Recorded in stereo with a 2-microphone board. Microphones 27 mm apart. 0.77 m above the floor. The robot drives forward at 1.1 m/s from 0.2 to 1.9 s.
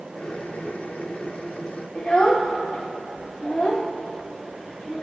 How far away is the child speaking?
About 0.8 m.